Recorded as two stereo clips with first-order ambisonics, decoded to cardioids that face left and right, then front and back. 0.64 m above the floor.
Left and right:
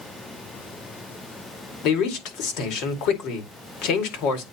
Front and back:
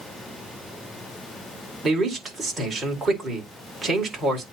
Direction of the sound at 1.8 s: 105° left.